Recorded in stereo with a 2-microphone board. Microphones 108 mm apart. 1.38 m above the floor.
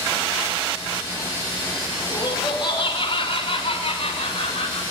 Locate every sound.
2.1 s laughter: 45° left (ahead or behind), 4.5 m; by 4.8 s 75° left (ahead or behind), 7 m